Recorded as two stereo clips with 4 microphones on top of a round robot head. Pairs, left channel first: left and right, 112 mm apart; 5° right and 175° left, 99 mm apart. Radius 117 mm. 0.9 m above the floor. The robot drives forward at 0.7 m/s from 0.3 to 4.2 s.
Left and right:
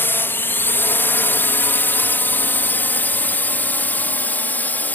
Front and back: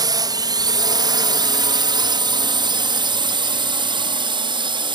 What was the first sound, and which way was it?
A drone, 155° left.